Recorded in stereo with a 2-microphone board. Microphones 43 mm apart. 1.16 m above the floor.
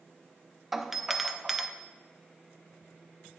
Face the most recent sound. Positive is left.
turn(degrees=-5)  # may be behind; listen again after turning